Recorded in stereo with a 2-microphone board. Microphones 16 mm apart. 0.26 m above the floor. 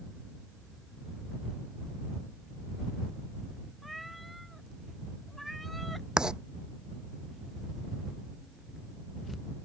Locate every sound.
3.8 s a cat meowing: 5° right (ahead or behind); by 6.1 s centre (ahead or behind)
6.2 s writing: 60° right (ahead or behind)